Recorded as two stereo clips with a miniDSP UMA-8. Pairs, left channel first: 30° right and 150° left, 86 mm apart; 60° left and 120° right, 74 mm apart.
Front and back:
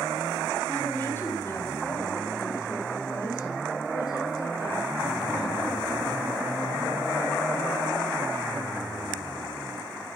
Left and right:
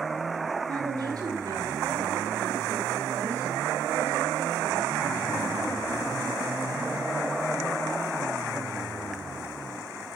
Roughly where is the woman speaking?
Right.